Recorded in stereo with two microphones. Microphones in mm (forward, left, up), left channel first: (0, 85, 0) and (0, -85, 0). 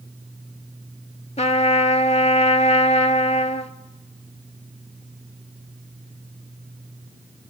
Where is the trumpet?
40° left (ahead or behind), 0.6 m.